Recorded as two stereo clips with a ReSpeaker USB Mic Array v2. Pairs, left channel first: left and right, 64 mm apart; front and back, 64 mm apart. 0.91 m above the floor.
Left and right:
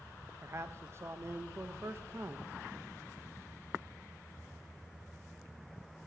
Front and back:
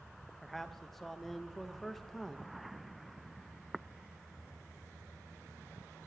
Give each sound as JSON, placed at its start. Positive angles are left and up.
{"t": 0.4, "sound": "a man speaking", "azimuth_deg": -85, "distance_m": 0.7}